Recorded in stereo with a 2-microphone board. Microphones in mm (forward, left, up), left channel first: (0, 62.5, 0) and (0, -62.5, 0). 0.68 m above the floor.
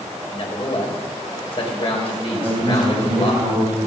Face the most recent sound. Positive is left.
turn(degrees=-25)  # may be behind; listen again after turning